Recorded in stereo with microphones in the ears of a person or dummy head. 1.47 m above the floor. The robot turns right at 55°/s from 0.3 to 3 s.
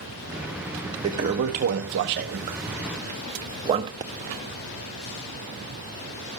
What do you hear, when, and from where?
1.0 s a toilet flushing: 20° right (ahead or behind), 0.9 m; by 3.9 s 25° right (ahead or behind), 0.9 m
4.0 s a pop: 20° right (ahead or behind), 0.7 m